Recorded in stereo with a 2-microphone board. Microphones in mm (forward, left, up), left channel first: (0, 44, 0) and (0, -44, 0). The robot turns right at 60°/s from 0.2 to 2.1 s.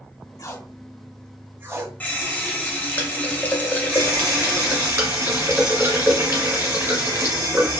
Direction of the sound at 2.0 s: 20° left (ahead or behind).